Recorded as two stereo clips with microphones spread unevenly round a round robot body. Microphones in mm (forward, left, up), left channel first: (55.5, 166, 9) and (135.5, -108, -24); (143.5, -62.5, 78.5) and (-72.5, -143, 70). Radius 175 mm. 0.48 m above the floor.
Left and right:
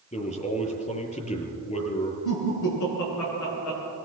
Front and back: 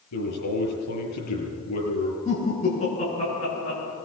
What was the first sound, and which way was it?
A man speaking, 40° left.